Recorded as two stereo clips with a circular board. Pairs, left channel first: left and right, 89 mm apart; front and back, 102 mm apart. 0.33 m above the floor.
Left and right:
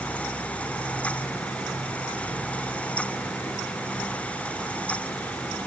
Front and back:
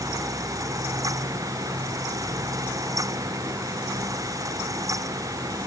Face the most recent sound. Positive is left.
No sound to turn to.